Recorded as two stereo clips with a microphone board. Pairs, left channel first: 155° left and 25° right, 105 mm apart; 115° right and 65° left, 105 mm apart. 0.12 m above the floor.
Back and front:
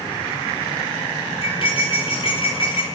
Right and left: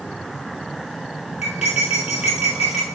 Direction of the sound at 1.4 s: 140° left.